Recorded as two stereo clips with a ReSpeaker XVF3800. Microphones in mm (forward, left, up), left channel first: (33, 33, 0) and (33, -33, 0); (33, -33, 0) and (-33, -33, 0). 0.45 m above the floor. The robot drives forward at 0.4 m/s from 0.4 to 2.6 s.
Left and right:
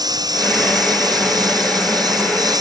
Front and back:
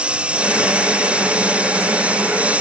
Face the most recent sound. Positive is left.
turn(degrees=-110)